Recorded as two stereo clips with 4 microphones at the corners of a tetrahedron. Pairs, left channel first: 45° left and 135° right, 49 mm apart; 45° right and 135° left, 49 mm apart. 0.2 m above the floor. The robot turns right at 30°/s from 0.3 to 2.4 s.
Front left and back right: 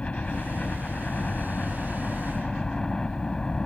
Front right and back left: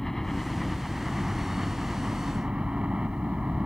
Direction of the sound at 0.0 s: 35° left.